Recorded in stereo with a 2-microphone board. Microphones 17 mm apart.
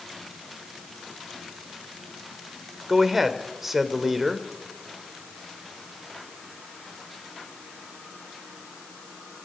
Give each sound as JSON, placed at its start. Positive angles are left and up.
{"t": 2.9, "sound": "a man speaking", "side_deg": -15, "distance_m": 1.9}